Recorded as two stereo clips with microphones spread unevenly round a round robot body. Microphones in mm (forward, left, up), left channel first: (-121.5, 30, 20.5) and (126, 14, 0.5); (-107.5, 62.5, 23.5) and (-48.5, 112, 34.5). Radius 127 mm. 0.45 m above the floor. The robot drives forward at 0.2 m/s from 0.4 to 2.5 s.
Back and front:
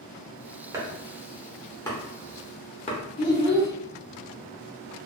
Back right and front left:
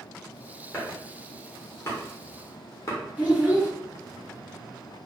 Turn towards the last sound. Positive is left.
turn(degrees=115)